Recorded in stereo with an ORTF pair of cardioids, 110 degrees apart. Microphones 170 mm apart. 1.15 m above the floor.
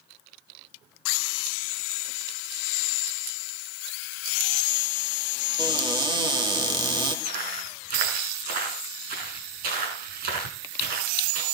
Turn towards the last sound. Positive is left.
turn(degrees=-70)